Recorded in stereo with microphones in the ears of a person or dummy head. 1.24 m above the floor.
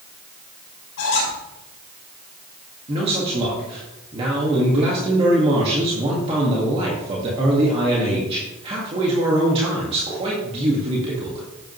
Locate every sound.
1.0 s a squeak: 60° left (ahead or behind), 5 m
2.9 s a man speaking: 35° right (ahead or behind), 1.9 m